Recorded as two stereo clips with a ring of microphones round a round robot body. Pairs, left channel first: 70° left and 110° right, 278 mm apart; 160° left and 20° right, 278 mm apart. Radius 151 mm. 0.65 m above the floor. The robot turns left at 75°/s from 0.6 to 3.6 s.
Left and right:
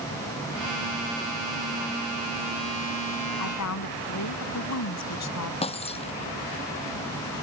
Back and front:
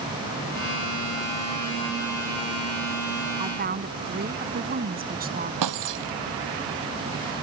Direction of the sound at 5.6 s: Straight ahead.